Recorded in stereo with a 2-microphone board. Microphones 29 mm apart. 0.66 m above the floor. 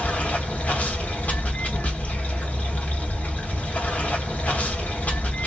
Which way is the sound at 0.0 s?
75° left (ahead or behind).